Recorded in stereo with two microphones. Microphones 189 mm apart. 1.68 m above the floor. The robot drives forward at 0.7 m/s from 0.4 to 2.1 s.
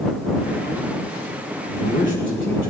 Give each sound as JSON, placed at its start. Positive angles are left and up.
{"t": 1.7, "sound": "a man speaking", "side_deg": 70, "distance_m": 1.7}